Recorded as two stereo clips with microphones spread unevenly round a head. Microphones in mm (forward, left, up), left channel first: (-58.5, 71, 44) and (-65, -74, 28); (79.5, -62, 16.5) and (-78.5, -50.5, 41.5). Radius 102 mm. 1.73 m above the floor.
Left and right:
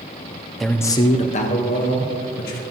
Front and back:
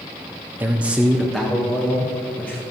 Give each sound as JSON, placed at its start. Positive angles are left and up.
{"t": 0.6, "sound": "a man speaking", "azimuth_deg": 160, "distance_m": 0.5}